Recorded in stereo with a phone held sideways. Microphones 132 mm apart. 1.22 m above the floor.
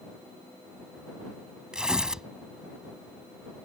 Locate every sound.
1.7 s tearing paper: 5° right (ahead or behind)